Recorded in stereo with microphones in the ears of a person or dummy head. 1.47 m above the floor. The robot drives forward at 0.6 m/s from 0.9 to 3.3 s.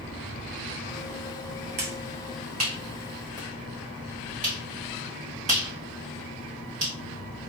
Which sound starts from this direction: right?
A finger snap, at 1.8 s.